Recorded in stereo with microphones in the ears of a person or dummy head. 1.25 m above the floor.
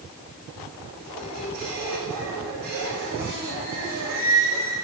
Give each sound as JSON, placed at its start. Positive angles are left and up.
{"t": 1.0, "sound": "a squeak", "side_deg": -50, "distance_m": 6.0}